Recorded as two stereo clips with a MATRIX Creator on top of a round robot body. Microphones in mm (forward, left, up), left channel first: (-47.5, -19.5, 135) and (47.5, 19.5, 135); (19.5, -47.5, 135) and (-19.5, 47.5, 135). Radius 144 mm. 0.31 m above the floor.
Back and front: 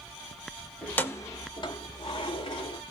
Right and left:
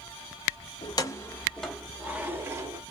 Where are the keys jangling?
85° right, 0.8 m; by 2.8 s 170° left, 1.2 m.